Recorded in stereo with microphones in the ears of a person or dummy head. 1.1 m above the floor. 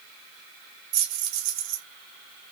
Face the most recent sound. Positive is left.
turn(degrees=-70)  # may be behind; listen again after turning